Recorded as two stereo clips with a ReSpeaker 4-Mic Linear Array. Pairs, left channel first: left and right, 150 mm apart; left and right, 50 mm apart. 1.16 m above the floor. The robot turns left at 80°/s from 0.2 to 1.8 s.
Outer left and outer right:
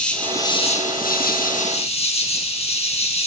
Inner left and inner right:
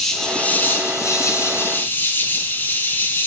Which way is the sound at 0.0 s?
175° left.